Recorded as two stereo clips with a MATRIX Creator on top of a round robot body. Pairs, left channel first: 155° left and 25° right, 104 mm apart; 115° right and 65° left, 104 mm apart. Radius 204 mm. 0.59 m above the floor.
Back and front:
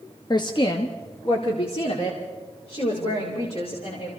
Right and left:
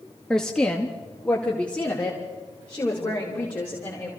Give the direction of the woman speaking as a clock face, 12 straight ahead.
6 o'clock.